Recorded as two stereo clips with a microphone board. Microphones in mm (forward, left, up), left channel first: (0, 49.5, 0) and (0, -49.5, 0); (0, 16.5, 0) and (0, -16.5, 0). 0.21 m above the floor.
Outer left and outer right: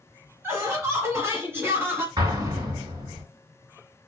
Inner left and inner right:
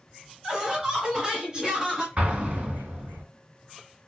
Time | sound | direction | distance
0.4 | laughter | 25° right (ahead or behind) | 1.1 m
2.2 | an explosion | 40° right (ahead or behind) | 2 m